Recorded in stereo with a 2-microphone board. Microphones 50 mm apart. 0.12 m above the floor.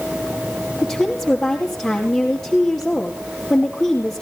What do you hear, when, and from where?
0.8 s a woman speaking: 10° left (ahead or behind), 2.5 m